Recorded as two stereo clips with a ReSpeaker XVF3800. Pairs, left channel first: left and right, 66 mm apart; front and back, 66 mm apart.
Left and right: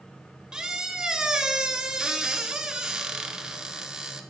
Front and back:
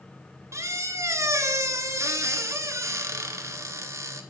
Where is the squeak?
165° right, 0.6 m.